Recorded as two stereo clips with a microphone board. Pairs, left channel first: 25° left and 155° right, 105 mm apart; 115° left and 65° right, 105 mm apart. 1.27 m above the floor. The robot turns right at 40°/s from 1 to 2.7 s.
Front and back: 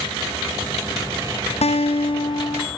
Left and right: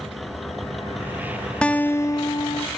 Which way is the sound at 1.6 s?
35° left.